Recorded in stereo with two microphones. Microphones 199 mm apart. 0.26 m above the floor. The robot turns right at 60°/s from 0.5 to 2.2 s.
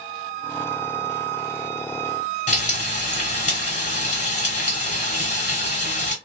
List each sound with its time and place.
2.5 s frying: 40° left (ahead or behind), 1.4 m